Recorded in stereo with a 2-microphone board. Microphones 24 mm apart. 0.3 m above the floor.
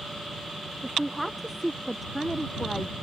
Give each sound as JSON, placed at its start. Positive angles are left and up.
{"t": 0.8, "sound": "a woman speaking", "side_deg": 0}